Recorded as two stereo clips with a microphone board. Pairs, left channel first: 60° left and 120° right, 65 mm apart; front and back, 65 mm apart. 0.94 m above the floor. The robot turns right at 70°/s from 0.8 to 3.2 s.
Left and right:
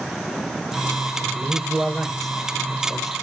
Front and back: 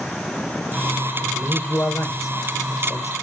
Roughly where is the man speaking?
Right.